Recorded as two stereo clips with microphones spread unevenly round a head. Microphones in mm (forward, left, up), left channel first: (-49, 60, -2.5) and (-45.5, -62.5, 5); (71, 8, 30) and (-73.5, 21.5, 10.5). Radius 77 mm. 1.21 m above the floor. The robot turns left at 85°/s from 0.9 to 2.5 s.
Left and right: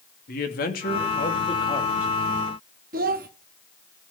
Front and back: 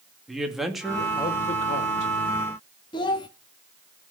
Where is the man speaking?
85° left, 2.5 m; by 2.1 s 15° right, 2.5 m.